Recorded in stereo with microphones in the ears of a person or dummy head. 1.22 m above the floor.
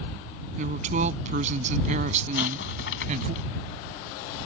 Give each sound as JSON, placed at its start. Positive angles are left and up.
{"t": 0.6, "sound": "a woman speaking", "side_deg": -40}
{"t": 2.4, "sound": "an explosion", "side_deg": 75}